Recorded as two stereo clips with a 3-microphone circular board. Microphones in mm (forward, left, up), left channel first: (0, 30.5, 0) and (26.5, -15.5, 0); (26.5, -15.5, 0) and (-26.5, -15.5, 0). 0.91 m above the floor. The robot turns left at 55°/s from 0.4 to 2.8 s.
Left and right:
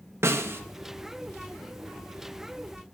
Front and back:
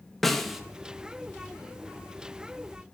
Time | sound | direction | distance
0.2 | a snare drum | 85° right | 0.6 m